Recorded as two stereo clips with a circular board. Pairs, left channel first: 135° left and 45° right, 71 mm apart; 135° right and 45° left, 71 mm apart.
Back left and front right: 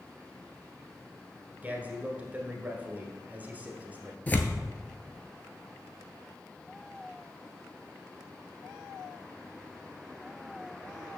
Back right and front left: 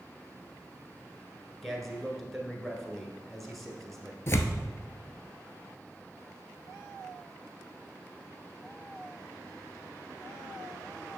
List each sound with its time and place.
1.6 s a man speaking: 50° right, 1.2 m
4.3 s tearing paper: 170° right, 0.7 m